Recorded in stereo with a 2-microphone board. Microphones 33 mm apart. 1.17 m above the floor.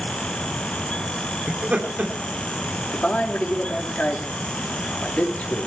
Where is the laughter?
45° right (ahead or behind), 3 m.